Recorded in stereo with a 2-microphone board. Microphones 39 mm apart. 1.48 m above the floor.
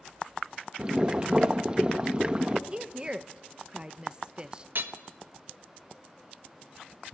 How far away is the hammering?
About 1.2 m.